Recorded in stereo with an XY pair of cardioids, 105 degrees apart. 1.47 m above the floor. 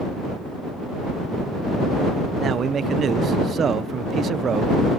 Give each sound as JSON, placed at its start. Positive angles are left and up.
{"t": 2.4, "sound": "a man speaking", "azimuth_deg": -50}